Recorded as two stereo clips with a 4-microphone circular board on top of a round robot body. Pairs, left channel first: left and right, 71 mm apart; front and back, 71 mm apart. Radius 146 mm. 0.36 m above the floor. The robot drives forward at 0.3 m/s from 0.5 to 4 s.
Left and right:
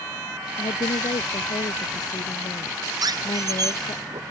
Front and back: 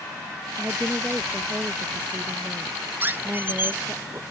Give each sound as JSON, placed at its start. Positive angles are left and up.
{"t": 0.6, "sound": "a woman speaking", "azimuth_deg": 110}
{"t": 3.0, "sound": "a squeak", "azimuth_deg": -115}